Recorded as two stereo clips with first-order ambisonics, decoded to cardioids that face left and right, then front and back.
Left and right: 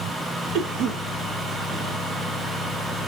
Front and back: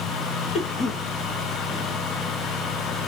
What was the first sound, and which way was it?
A cough, 60° right.